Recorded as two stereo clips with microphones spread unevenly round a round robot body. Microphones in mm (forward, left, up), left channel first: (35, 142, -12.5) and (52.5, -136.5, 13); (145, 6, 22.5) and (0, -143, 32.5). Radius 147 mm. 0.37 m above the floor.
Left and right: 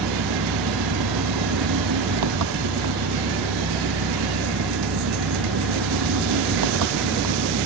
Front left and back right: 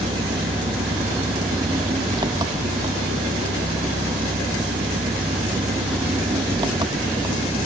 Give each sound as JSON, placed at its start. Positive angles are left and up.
{"t": 0.0, "sound": "an engine running", "azimuth_deg": -65}